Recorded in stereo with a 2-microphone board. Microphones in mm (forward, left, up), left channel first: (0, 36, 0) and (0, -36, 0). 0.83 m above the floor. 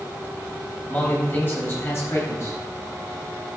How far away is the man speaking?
About 4 m.